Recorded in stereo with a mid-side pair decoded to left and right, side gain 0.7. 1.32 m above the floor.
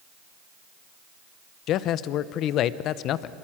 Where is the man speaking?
55° left, 0.7 m.